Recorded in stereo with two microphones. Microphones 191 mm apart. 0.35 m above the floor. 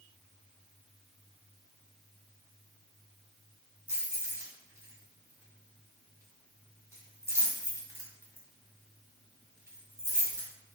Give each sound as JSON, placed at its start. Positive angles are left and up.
{"t": 3.9, "sound": "keys jangling", "side_deg": -15, "distance_m": 1.4}